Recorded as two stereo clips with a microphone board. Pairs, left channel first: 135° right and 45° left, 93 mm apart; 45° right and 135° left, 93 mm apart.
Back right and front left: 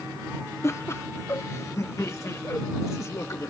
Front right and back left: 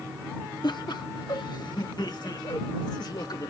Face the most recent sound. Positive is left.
turn(degrees=-80)